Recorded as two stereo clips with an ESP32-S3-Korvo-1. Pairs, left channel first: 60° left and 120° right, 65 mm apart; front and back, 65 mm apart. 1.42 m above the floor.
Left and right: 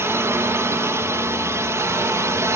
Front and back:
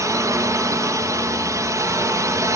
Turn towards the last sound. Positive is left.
turn(degrees=-155)